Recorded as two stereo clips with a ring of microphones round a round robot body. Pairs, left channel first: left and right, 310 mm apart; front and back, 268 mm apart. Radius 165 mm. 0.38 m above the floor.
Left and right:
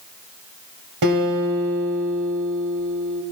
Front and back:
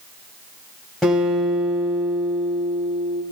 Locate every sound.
1.0 s a guitar: 90° right, 2.5 m